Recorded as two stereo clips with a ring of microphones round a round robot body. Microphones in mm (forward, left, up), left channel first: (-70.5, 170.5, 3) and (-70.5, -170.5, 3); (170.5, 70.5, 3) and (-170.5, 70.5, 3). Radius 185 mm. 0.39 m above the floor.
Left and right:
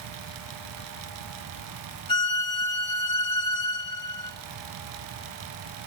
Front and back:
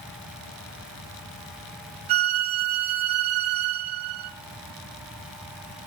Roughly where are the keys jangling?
No keys jangling in this recording.